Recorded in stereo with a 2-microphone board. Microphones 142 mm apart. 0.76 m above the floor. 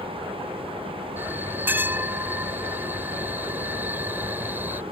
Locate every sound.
1.2 s a bell: 15° right (ahead or behind)